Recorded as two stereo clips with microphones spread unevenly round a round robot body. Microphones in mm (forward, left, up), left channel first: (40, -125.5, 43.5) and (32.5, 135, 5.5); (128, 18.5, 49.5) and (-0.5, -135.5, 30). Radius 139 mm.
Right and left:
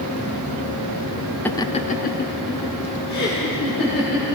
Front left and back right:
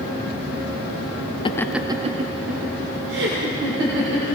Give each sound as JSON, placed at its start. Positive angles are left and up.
{"t": 1.4, "sound": "laughter", "azimuth_deg": 5, "distance_m": 0.6}